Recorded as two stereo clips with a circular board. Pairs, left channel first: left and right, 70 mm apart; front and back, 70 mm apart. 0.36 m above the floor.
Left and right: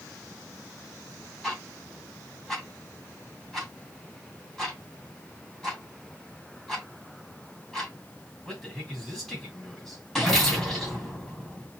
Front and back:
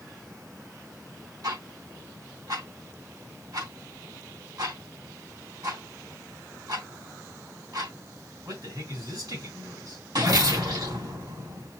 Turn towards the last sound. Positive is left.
turn(degrees=180)